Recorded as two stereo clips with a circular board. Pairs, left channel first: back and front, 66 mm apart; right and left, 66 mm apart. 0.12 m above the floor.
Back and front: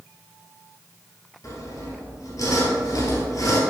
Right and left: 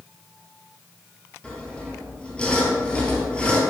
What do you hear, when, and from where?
1.4 s sawing: 160° right, 2 m